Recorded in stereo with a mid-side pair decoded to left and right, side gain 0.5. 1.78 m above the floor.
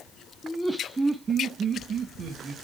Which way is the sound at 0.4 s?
15° left.